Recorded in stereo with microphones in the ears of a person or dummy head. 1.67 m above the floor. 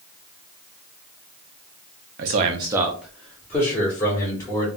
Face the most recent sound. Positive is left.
turn(degrees=20)  # may be behind; listen again after turning